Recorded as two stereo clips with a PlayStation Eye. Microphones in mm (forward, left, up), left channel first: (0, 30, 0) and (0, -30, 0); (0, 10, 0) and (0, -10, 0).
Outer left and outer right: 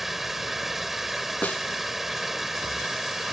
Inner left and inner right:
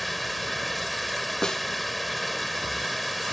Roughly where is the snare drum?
Left.